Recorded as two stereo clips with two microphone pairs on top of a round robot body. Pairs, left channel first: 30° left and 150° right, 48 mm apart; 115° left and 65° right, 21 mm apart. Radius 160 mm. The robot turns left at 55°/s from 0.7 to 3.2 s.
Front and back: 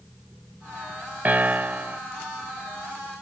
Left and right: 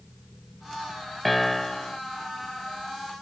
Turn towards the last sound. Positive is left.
turn(degrees=105)